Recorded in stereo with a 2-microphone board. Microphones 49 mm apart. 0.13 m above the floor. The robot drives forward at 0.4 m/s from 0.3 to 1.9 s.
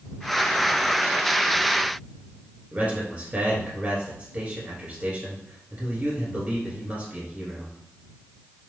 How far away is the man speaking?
About 1.7 m.